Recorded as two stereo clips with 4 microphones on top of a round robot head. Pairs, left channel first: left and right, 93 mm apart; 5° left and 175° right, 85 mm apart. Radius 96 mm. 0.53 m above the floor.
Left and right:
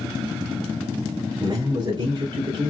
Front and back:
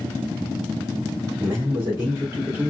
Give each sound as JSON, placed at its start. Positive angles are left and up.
{"t": 1.4, "sound": "a man speaking", "azimuth_deg": -120, "distance_m": 1.5}